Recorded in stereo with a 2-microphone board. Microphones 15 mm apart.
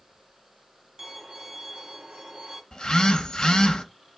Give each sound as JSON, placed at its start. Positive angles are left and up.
{"t": 1.0, "sound": "a violin", "side_deg": -30, "distance_m": 1.0}
{"t": 2.7, "sound": "a phone buzzing", "side_deg": 65, "distance_m": 0.6}